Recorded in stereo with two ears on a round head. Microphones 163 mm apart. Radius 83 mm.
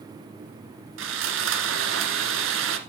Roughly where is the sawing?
Right.